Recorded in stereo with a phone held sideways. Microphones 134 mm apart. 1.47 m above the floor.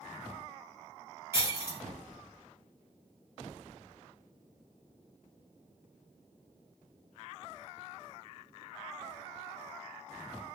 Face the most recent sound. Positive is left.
turn(degrees=-20)  # may be behind; listen again after turning